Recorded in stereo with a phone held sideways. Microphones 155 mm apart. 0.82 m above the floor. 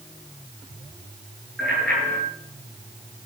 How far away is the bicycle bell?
About 10 m.